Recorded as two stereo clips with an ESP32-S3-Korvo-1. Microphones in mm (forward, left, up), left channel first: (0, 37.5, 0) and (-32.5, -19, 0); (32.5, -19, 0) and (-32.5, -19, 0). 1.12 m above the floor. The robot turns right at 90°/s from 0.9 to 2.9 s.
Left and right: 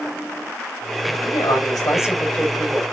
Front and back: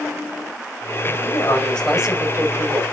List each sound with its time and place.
1.2 s a man speaking: 30° left, 5.5 m; by 2.8 s 175° left, 5.5 m